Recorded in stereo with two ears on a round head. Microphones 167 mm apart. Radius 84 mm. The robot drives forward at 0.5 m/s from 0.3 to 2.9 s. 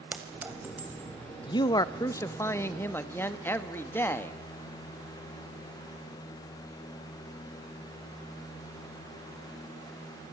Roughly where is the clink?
Centre.